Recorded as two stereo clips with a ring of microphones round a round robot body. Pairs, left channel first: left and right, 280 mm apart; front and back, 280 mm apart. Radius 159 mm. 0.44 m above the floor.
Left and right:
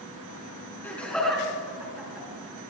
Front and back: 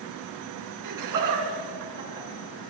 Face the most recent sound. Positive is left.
turn(degrees=-175)